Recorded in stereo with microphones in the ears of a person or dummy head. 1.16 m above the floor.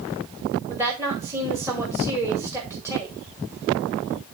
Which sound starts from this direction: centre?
A woman speaking, at 0.7 s.